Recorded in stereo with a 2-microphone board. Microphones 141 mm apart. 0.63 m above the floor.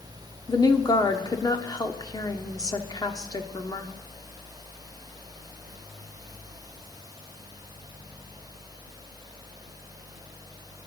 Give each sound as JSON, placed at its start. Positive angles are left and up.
{"t": 0.5, "sound": "a woman speaking", "side_deg": 25, "distance_m": 1.4}